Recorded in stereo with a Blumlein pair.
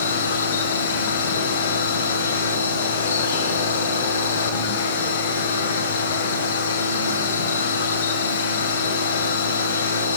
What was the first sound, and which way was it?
A machine running, 65° left.